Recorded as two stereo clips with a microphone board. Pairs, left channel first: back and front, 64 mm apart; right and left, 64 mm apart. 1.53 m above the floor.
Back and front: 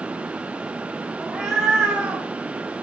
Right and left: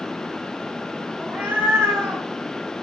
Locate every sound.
1.2 s a cat meowing: 80° left, 1.2 m; by 2.2 s 60° left, 1.5 m